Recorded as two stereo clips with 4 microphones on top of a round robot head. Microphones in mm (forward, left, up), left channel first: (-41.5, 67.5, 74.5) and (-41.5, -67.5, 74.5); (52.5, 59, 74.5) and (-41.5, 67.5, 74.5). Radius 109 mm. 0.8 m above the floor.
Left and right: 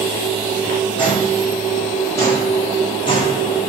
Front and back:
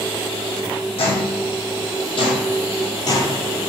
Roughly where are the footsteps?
Ahead.